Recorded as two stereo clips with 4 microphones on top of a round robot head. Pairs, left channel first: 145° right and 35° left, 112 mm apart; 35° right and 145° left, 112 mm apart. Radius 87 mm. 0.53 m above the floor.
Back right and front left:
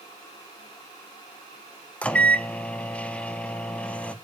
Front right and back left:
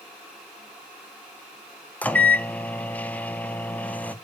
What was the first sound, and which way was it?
A microwave, 85° right.